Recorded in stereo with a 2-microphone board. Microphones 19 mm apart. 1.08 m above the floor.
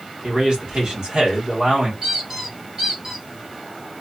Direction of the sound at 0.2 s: 50° right (ahead or behind).